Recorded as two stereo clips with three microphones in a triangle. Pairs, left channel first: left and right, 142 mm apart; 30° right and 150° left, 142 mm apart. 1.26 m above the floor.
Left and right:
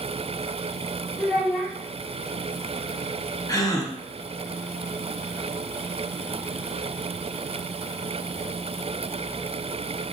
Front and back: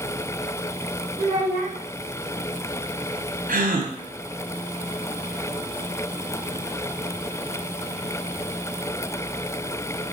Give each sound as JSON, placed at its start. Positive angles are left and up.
{"t": 1.2, "sound": "a child speaking", "azimuth_deg": 170, "distance_m": 1.2}
{"t": 3.5, "sound": "a gasp", "azimuth_deg": 155, "distance_m": 0.6}